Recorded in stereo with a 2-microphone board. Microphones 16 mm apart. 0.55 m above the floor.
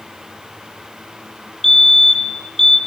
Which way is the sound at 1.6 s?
20° left (ahead or behind).